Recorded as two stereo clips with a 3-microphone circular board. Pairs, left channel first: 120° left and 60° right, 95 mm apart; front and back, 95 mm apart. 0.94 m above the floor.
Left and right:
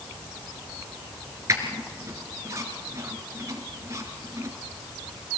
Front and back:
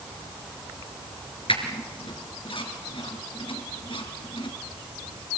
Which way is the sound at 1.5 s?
5° right.